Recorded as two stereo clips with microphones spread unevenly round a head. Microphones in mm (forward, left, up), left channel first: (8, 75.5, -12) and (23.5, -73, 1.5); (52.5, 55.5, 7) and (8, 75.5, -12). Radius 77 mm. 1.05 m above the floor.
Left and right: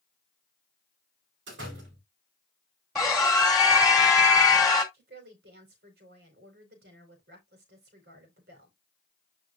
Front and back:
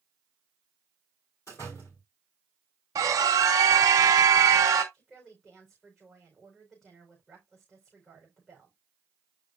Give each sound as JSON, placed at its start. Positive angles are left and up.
{"t": 1.5, "sound": "a door slam", "azimuth_deg": -90, "distance_m": 4.0}
{"t": 3.0, "sound": "a scream", "azimuth_deg": -175, "distance_m": 2.0}
{"t": 4.9, "sound": "a woman speaking", "azimuth_deg": -115, "distance_m": 4.0}